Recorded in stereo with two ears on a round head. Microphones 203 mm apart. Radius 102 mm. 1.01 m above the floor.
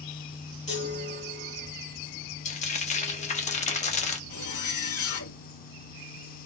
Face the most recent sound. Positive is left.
turn(degrees=70)  # may be behind; listen again after turning